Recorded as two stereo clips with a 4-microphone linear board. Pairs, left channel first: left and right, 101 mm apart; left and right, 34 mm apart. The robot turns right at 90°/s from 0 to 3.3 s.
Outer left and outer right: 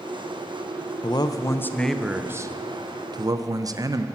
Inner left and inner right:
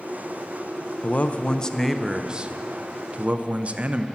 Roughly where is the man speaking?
Left.